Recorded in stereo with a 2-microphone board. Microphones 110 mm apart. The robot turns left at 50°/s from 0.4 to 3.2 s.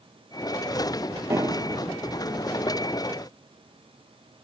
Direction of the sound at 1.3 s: 25° right (ahead or behind).